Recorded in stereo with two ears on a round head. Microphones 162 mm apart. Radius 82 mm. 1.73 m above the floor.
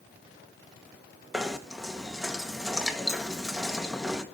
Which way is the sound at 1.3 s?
Centre (ahead or behind).